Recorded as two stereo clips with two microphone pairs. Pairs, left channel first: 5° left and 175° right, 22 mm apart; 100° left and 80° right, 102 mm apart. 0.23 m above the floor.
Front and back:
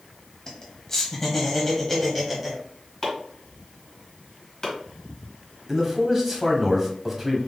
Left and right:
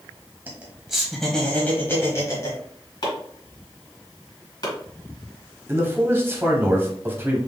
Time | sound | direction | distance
0.5 | laughter | 25° right | 1.4 m
3.0 | chopping | 65° left | 2 m
5.7 | a man speaking | 110° right | 1.1 m